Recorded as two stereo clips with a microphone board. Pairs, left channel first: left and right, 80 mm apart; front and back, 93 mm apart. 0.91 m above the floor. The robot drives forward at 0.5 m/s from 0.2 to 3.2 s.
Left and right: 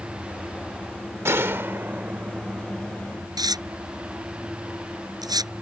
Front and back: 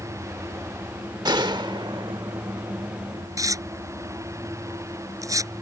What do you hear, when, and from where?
1.2 s a gunshot: 145° right; by 3.3 s 165° right
3.4 s tearing paper: 125° right